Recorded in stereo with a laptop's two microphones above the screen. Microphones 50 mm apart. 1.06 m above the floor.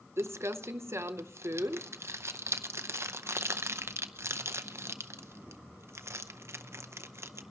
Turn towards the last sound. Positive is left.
turn(degrees=-60)  # may be behind; listen again after turning